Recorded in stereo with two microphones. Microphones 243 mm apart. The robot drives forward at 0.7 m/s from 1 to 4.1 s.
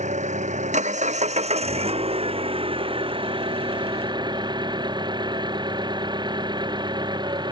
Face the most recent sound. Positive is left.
turn(degrees=-20)  # may be behind; listen again after turning